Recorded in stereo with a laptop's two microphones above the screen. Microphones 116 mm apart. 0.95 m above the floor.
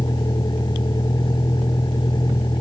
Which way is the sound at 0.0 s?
40° left (ahead or behind).